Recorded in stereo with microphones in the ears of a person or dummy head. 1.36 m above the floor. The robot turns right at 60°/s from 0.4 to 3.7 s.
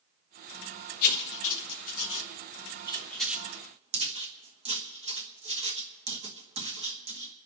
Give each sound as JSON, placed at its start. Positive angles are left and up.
{"t": 1.0, "sound": "writing", "side_deg": 45, "distance_m": 1.2}